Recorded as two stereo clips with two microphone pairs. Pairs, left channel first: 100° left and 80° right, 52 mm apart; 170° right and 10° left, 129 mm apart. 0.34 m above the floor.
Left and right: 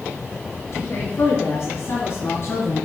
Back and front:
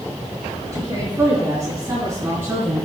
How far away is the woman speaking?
About 4.5 m.